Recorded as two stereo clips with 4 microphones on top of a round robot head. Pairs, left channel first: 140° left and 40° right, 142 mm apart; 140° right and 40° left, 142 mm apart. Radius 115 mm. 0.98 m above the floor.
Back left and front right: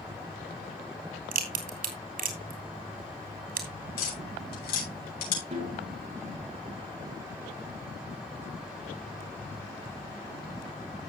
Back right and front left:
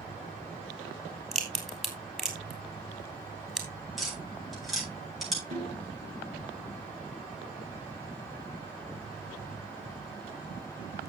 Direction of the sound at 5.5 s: 10° left.